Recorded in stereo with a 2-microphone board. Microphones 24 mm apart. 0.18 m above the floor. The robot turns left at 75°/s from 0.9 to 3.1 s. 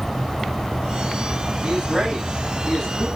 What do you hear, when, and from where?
1.6 s a man speaking: 115° right, 9.5 m; by 3.1 s 135° left, 9.5 m